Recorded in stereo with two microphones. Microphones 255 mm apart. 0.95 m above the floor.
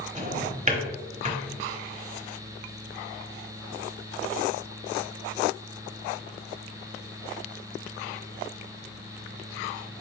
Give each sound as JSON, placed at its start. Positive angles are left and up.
{"t": 0.1, "sound": "a drawer", "side_deg": -30, "distance_m": 1.1}